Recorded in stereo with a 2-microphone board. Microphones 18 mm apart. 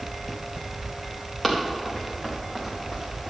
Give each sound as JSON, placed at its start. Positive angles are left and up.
{"t": 1.4, "sound": "running footsteps", "side_deg": 10, "distance_m": 3.5}